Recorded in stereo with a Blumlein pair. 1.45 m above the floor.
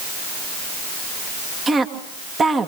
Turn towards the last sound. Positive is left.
turn(degrees=-15)